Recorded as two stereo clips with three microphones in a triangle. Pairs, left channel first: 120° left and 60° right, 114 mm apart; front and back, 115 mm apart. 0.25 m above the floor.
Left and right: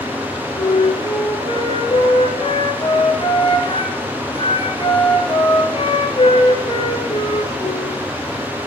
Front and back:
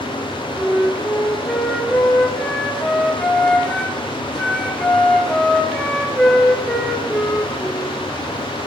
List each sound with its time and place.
0.6 s a flute: 85° left, 3 m